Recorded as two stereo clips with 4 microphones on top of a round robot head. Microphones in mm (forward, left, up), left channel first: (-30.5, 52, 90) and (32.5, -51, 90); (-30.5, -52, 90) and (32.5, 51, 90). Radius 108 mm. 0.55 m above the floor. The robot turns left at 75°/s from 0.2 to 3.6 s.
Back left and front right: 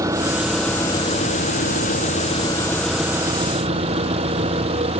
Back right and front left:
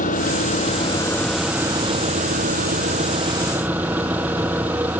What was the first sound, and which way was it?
An engine running, 120° right.